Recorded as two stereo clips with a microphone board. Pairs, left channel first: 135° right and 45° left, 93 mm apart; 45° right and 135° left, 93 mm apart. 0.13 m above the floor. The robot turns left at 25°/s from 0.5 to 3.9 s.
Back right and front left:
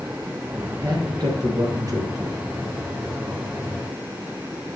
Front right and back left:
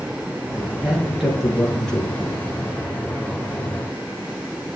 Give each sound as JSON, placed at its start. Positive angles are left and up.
{"t": 0.8, "sound": "a man speaking", "azimuth_deg": 60, "distance_m": 2.5}